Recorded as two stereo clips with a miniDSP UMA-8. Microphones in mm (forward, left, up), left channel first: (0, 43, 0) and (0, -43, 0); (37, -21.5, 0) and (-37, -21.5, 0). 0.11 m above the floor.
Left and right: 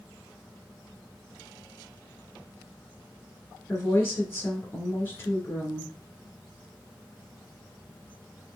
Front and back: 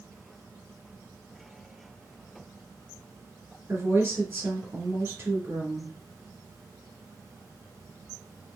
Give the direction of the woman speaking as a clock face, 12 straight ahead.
7 o'clock.